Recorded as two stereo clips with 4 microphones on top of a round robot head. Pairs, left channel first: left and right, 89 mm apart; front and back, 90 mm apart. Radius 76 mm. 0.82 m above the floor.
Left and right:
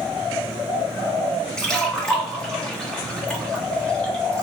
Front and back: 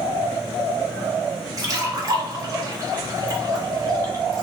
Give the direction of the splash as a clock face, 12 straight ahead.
6 o'clock.